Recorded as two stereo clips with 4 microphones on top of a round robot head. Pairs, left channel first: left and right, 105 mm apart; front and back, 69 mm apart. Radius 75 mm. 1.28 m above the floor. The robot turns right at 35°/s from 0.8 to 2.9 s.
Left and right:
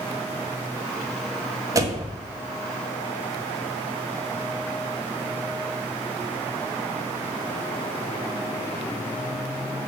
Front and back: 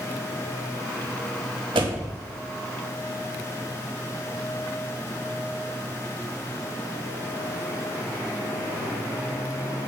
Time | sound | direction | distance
1.8 | a door slam | 150° right | 1.2 m